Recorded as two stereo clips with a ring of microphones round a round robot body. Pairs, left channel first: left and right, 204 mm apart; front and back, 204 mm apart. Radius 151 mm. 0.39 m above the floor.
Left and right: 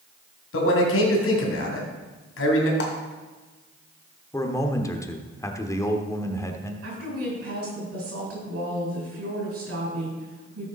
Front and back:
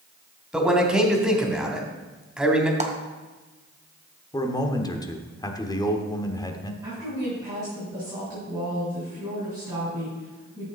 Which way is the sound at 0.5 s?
95° left.